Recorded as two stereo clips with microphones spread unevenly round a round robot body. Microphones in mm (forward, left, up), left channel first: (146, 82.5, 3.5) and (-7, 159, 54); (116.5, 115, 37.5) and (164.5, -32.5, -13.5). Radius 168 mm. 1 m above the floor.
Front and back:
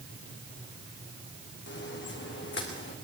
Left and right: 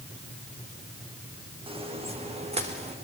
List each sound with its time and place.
1.7 s footsteps: 10° right, 3 m; by 3.0 s 20° right, 5 m